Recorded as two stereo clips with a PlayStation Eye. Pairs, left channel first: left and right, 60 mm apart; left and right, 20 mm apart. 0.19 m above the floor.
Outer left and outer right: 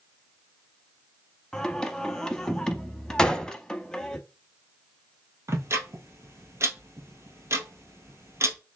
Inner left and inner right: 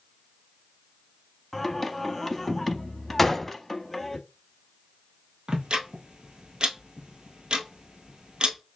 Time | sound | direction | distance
1.5 | singing | 10° left (ahead or behind) | 0.7 m
3.2 | a gunshot | 15° left (ahead or behind) | 0.6 m
5.5 | ticking | 50° right (ahead or behind) | 1.3 m